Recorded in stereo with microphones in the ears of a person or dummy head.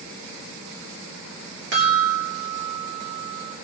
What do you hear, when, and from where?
1.7 s a chime: 75° right (ahead or behind), 3 m